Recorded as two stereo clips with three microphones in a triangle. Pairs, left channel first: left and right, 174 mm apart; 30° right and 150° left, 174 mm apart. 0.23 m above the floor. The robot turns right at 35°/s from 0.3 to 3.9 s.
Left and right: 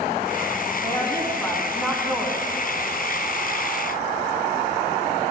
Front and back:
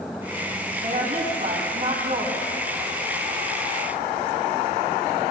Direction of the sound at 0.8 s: 145° left.